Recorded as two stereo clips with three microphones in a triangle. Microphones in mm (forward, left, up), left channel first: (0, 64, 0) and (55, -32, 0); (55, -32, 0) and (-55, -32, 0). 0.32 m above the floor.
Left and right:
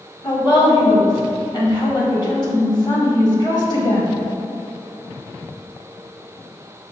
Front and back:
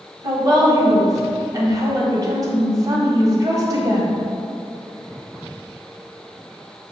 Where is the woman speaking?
140° left, 1.3 m.